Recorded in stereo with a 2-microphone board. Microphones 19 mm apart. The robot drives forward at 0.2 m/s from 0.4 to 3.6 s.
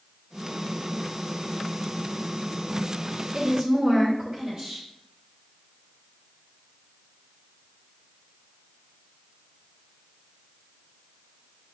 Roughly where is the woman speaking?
Right.